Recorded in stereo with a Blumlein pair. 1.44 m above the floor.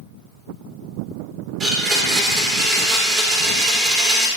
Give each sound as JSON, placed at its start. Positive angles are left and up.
{"t": 1.6, "sound": "a blender", "azimuth_deg": -20, "distance_m": 2.5}